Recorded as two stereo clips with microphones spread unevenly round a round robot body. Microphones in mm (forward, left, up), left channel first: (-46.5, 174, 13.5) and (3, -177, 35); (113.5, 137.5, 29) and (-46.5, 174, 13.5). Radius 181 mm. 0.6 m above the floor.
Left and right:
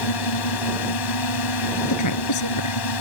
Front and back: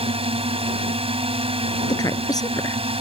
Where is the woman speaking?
55° left.